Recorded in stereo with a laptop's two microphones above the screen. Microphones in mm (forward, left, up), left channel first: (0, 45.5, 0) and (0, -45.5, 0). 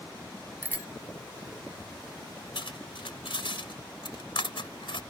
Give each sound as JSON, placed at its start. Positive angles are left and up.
{"t": 0.6, "sound": "a bicycle bell", "side_deg": -20}
{"t": 2.5, "sound": "cutlery clinking", "side_deg": 80}